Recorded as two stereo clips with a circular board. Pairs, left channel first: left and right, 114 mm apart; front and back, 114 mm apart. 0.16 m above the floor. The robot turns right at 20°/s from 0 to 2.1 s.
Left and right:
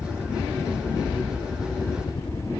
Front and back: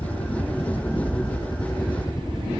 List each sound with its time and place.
0.0 s a helicopter: 10° left; by 2.6 s 55° left